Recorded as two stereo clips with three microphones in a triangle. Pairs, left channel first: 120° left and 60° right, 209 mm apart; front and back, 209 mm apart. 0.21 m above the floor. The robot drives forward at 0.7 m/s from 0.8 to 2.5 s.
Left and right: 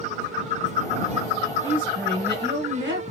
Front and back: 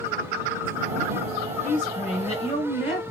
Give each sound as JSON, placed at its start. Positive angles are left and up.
{"t": 1.6, "sound": "a woman speaking", "azimuth_deg": -45, "distance_m": 2.5}